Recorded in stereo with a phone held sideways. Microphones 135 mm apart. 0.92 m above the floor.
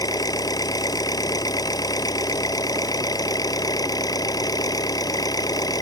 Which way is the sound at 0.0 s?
25° left (ahead or behind).